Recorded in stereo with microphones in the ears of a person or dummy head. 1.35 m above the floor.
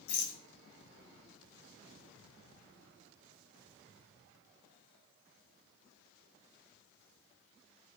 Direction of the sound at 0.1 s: 55° left (ahead or behind).